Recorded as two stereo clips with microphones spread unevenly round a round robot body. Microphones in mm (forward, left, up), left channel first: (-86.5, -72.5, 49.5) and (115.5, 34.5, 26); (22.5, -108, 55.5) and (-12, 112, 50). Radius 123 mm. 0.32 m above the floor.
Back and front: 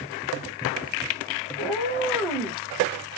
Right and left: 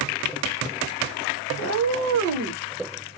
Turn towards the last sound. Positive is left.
turn(degrees=95)